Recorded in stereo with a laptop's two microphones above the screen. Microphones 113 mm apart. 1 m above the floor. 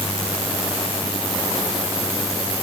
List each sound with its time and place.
Only background noise.